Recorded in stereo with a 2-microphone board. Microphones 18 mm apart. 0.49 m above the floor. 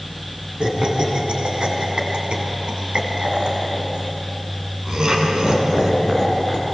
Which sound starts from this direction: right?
Laughter, at 0.6 s.